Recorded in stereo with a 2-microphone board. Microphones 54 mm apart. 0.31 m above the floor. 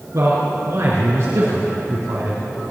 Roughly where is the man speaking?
Right.